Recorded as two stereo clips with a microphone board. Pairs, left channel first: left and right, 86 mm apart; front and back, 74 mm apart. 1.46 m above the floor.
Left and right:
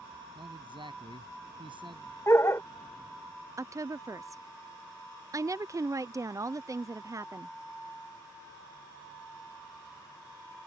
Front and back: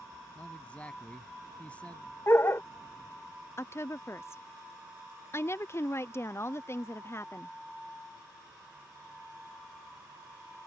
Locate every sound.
0.3 s a man speaking: 70° right
2.3 s a dog barking: 45° left
3.6 s a woman speaking: 45° right